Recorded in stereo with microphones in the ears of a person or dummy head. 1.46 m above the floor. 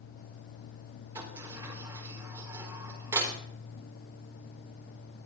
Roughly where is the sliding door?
Centre.